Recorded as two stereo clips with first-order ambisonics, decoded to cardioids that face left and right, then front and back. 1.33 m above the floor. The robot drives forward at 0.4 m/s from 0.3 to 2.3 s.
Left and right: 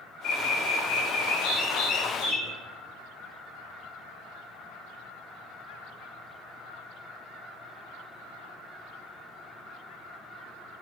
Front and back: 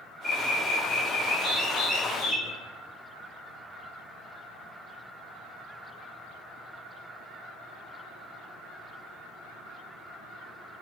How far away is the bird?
About 1.5 m.